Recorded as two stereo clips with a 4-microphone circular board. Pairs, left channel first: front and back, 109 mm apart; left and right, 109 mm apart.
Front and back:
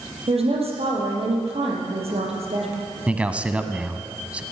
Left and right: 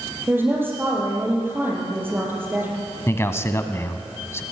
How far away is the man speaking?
About 1.2 m.